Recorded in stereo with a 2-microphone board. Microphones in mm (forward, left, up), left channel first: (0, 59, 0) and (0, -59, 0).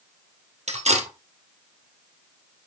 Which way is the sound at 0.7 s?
70° right (ahead or behind).